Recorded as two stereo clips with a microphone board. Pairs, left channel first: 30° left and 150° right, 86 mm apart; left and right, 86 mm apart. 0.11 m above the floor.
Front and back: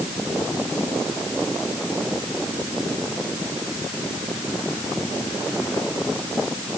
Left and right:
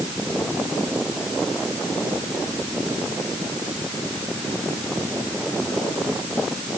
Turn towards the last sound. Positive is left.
No sound to turn to.